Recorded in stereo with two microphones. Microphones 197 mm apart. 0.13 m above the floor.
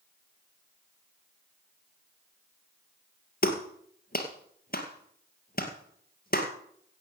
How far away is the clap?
About 2.5 m.